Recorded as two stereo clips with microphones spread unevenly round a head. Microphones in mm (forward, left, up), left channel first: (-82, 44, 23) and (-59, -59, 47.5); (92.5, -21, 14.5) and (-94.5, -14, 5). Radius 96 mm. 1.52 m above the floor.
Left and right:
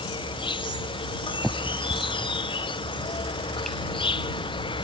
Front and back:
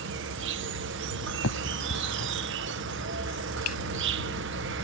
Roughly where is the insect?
Behind left.